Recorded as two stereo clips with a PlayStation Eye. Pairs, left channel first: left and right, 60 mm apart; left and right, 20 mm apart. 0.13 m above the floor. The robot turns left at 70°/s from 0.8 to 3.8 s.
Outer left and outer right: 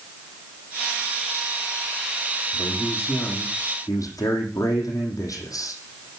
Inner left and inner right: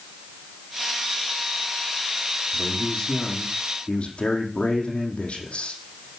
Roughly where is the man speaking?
Behind.